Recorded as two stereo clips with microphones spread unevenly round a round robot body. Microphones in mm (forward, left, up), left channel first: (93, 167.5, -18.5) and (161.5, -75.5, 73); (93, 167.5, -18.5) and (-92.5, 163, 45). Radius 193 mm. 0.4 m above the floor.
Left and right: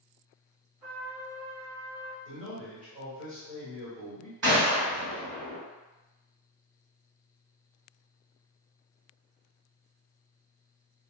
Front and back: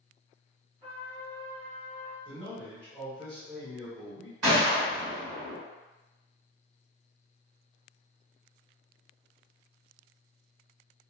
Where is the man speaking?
125° right, 1.2 m.